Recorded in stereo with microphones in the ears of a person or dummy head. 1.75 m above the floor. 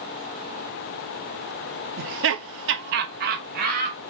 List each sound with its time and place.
2.0 s laughter: 50° right (ahead or behind), 0.7 m; by 4.1 s 40° right (ahead or behind), 1.9 m